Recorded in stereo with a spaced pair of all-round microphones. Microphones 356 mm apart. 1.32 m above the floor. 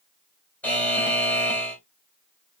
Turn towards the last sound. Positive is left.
turn(degrees=5)  # may be behind; listen again after turning